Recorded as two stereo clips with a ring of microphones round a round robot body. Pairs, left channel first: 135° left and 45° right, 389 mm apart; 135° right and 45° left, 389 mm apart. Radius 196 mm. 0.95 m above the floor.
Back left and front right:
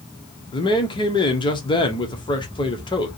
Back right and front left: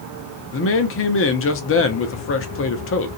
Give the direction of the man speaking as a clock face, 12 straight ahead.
5 o'clock.